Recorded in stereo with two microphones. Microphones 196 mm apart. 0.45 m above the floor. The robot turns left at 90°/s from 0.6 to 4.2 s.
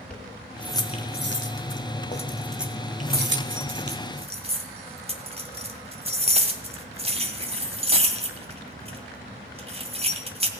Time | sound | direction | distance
0.1 | keys jangling | 5° left (ahead or behind) | 1.7 m